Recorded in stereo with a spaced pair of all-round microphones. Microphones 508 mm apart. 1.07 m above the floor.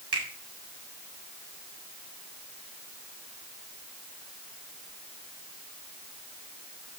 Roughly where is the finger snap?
Right.